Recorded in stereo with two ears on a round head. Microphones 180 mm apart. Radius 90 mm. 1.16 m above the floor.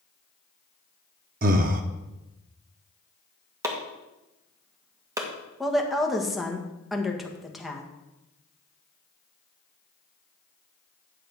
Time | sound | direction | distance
1.4 | breathing | 40° right (ahead or behind) | 0.7 m
3.6 | chopping | 15° right (ahead or behind) | 1.7 m
5.6 | a woman speaking | centre (ahead or behind) | 1.4 m